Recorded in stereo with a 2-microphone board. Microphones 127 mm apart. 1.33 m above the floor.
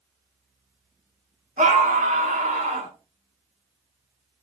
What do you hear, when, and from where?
1.6 s a scream: 90° right, 3 m